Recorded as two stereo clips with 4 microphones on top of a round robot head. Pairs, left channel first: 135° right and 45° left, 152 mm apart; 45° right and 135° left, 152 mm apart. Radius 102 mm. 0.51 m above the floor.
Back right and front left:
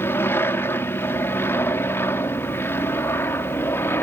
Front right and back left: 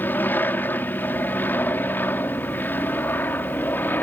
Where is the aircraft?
95° right.